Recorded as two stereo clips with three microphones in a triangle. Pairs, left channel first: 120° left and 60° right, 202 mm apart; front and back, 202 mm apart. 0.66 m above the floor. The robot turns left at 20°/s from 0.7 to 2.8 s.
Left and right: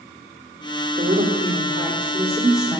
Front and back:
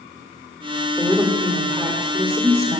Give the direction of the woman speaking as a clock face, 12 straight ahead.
4 o'clock.